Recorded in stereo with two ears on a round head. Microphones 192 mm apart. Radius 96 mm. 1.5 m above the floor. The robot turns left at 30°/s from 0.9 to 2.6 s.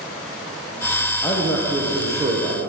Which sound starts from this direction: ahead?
A man speaking, at 1.2 s.